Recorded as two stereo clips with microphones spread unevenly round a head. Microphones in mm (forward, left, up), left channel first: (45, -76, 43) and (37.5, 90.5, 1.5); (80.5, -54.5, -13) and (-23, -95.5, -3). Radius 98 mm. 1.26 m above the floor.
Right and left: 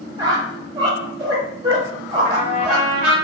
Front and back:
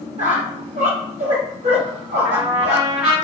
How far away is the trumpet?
About 1.3 m.